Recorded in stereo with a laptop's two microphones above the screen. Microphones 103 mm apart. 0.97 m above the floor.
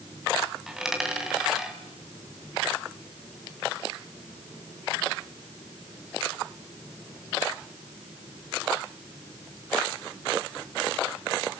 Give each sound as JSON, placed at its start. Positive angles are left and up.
{"t": 0.7, "sound": "a dropped coin", "side_deg": -5, "distance_m": 2.5}